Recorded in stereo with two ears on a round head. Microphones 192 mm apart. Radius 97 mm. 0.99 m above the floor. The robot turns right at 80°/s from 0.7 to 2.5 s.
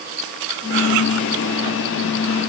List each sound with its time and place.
Only background noise.